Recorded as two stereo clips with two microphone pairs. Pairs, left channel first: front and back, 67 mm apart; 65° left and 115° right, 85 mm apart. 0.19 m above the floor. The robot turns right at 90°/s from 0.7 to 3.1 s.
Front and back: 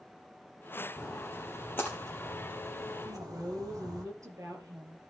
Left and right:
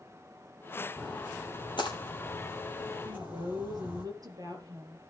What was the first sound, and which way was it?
A splash, 15° right.